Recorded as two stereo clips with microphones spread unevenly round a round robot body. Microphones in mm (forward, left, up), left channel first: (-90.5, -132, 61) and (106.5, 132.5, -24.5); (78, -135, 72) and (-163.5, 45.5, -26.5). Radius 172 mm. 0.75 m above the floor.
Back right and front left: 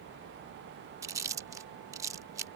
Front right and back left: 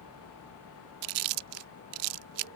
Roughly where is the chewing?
Behind left.